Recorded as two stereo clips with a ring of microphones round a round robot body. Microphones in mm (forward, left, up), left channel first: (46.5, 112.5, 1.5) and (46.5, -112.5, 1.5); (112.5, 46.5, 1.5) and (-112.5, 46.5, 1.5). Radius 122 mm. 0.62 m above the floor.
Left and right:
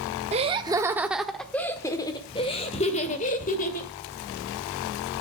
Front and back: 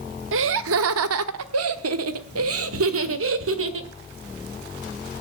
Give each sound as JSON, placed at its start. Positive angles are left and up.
{"t": 0.3, "sound": "laughter", "azimuth_deg": -150, "distance_m": 1.0}